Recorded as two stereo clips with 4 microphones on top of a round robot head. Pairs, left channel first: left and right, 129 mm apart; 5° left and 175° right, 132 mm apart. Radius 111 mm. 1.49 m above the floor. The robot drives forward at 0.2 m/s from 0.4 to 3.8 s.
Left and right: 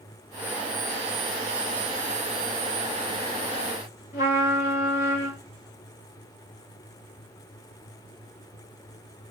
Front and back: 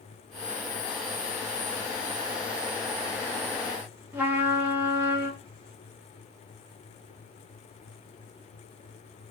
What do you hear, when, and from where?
4.1 s a trumpet: 115° left, 1.3 m